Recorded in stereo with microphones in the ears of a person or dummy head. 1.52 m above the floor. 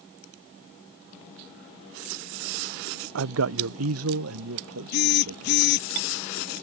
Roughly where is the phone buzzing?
Left.